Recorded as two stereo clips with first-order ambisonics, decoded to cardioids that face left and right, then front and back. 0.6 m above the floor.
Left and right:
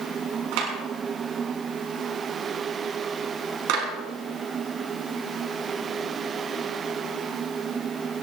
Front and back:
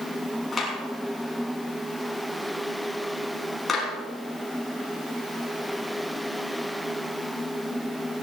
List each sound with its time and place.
0.5 s a clap: 75° right, 6 m